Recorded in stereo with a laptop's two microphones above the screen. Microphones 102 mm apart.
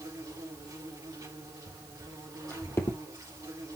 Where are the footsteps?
10° left (ahead or behind), 2.5 m; by 3.0 s 30° left (ahead or behind), 1.8 m.